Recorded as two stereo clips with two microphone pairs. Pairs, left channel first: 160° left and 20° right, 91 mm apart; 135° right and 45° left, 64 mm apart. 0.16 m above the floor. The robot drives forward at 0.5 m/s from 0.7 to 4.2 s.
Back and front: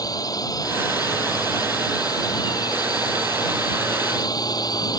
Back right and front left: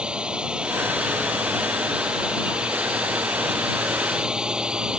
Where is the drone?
120° left.